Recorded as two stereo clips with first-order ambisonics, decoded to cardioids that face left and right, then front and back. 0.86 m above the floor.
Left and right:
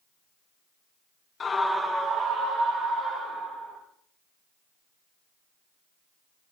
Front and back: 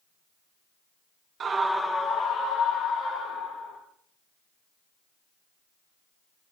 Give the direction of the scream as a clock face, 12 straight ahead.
7 o'clock.